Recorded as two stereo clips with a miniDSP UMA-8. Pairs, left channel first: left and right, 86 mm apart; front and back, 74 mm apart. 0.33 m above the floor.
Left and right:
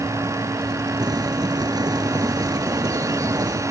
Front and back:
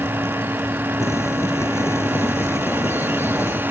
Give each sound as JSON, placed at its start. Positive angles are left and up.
{"t": 1.0, "sound": "boiling", "azimuth_deg": -50}